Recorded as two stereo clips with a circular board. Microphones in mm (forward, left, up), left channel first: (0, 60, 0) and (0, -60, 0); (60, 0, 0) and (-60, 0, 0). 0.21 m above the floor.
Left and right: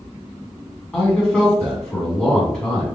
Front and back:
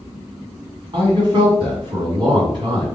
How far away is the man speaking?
About 1.8 m.